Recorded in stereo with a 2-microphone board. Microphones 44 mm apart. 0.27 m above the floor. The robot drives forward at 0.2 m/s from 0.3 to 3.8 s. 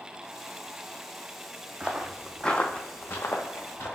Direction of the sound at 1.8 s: 25° right (ahead or behind).